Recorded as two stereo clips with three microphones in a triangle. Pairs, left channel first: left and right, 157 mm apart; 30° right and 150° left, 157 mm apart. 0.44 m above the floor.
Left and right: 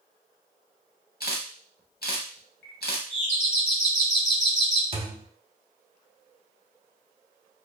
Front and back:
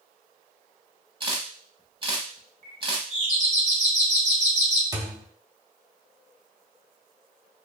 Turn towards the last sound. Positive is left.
turn(degrees=-140)